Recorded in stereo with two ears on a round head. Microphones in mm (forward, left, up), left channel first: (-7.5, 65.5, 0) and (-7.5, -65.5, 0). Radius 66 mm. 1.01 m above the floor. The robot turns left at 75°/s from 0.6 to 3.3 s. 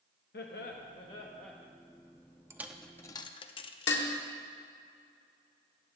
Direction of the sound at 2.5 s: 15° right (ahead or behind).